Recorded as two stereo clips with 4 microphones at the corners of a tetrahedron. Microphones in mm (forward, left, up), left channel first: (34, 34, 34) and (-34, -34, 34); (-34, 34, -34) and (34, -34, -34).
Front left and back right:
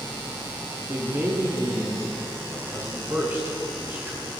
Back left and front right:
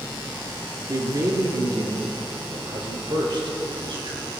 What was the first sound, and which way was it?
A man speaking, 85° right.